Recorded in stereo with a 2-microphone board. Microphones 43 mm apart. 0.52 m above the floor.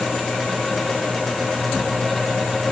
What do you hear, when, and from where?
Only background noise.